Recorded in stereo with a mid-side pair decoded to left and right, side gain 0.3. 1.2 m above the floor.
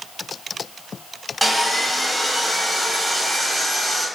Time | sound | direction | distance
1.4 | sawing | 5° right | 0.9 m